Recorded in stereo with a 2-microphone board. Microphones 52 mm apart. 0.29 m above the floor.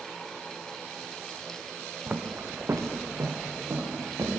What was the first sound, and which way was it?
Footsteps, 35° right (ahead or behind).